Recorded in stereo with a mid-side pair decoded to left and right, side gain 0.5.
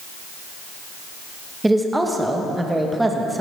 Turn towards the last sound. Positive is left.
turn(degrees=-10)